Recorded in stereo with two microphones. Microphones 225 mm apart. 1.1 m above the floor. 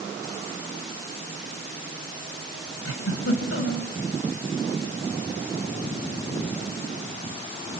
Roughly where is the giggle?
Left.